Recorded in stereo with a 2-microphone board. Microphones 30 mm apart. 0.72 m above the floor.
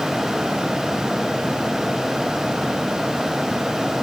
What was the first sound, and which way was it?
Only background noise.